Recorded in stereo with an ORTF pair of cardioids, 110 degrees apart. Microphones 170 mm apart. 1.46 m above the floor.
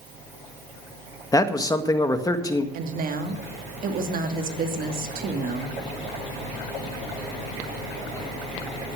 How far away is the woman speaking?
About 2.5 m.